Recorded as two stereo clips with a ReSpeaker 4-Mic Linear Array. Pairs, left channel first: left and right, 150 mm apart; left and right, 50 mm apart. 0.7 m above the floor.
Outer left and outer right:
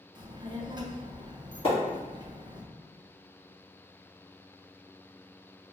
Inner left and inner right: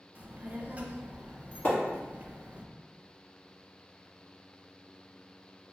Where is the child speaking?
30° right (ahead or behind), 0.5 m.